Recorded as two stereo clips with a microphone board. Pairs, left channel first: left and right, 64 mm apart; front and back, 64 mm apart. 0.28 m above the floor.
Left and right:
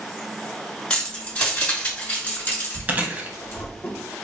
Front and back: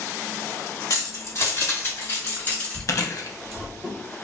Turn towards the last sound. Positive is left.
turn(degrees=-30)